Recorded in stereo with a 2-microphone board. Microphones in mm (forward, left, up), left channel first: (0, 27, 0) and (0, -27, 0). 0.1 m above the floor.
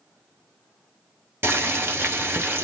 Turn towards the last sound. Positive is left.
turn(degrees=-40)  # may be behind; listen again after turning